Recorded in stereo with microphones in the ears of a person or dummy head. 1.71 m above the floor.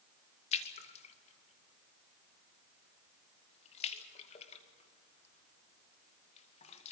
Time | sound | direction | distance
0.5 | a splash | 40° left (ahead or behind) | 2 m